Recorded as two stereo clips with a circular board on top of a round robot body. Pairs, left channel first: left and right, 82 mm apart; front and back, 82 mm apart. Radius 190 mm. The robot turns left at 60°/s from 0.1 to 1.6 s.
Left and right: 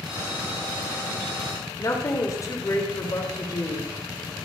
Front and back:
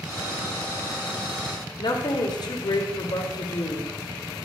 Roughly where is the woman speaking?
Ahead left.